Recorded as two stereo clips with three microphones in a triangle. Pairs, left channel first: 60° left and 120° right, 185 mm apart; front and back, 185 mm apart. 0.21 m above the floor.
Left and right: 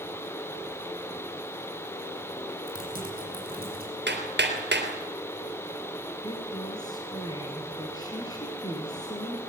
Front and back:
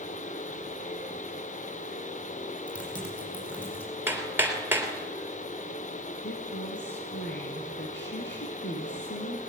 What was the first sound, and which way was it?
Typing on a keyboard, 85° right.